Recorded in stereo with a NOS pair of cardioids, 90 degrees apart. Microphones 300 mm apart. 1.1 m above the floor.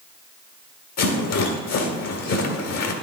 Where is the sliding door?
I don't hear a sliding door.